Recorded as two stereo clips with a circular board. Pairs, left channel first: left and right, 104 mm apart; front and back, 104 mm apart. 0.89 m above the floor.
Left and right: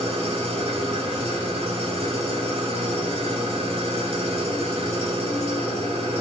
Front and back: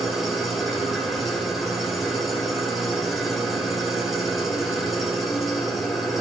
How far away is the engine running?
About 2.0 m.